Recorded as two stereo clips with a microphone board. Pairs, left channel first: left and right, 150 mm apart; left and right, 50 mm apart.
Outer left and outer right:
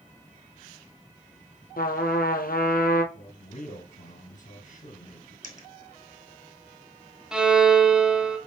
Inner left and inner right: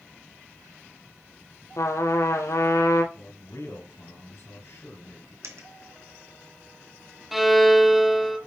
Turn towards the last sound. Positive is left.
turn(degrees=-5)  # may be behind; listen again after turning